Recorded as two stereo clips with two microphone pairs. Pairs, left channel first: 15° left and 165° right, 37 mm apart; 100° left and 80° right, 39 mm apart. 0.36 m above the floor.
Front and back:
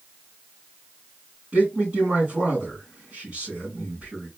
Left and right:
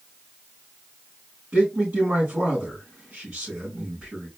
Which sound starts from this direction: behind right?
A man speaking, at 1.5 s.